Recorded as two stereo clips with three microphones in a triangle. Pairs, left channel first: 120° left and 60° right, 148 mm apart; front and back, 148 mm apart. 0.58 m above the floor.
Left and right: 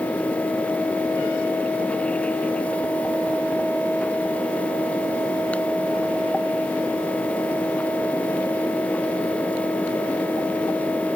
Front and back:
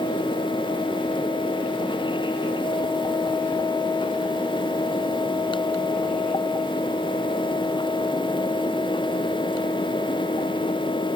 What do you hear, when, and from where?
Only background noise.